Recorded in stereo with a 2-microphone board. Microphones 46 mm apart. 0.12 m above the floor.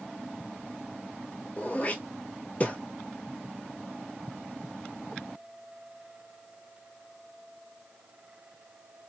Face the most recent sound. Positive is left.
turn(degrees=30)  # may be behind; listen again after turning